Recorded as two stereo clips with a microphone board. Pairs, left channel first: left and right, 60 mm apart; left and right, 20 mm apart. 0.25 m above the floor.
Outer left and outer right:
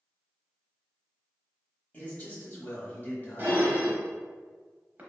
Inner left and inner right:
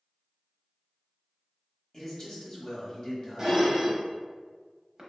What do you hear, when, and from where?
1.9 s a man speaking: 30° left (ahead or behind), 1.0 m
3.4 s dishes clattering: 30° right (ahead or behind), 0.8 m